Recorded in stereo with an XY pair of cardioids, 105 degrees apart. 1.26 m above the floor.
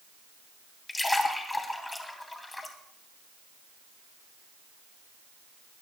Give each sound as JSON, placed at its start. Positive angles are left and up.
{"t": 0.9, "sound": "a splash", "azimuth_deg": 15, "distance_m": 3.0}